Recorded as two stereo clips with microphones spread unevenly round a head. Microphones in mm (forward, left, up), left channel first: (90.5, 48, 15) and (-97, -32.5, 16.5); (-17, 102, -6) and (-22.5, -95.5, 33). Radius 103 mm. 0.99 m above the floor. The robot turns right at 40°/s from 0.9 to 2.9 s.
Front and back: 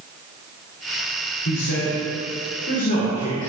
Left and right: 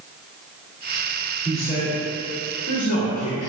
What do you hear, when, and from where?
1.4 s a man speaking: 15° left, 3 m; by 3.5 s 70° left, 3 m